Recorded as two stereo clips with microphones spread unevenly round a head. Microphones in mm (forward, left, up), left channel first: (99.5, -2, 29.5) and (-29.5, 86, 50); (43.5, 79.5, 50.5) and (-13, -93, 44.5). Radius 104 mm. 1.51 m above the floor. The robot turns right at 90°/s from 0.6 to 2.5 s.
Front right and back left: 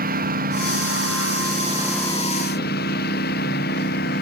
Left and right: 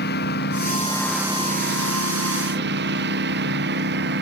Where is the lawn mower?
115° left; by 4.2 s 75° right.